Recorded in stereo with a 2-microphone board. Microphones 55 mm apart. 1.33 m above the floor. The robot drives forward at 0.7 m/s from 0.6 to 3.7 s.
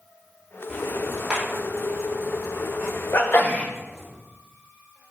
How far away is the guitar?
No guitar in this recording.